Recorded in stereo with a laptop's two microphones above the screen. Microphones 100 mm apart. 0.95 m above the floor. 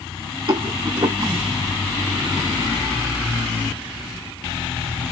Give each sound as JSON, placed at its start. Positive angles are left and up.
{"t": 0.5, "sound": "a rattle", "side_deg": -50, "distance_m": 1.0}